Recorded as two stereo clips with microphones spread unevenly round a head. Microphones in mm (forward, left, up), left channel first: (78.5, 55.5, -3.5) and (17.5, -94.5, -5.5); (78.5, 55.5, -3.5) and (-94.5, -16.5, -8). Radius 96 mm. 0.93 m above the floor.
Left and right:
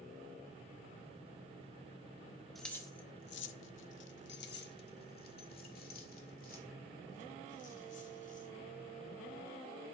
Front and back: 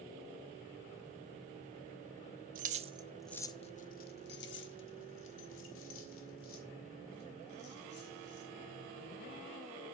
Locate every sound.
2.5 s keys jangling: 155° left, 0.8 m; by 8.5 s 30° left, 4 m